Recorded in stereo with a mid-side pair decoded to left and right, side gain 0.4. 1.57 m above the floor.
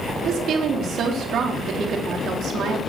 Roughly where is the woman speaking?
Right.